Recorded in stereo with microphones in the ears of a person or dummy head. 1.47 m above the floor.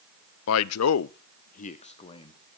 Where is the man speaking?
65° left (ahead or behind), 0.5 m; by 2.6 s 20° left (ahead or behind), 1.2 m.